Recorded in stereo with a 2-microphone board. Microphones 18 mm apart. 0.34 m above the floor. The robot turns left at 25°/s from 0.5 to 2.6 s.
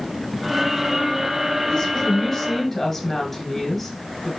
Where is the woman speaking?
25° left (ahead or behind), 1.1 m; by 4.3 s 15° left (ahead or behind), 1.1 m.